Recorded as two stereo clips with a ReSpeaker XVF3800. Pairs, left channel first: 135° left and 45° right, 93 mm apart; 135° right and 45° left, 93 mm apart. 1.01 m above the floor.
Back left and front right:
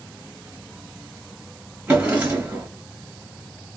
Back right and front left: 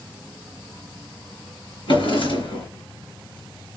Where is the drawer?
120° right, 2.5 m.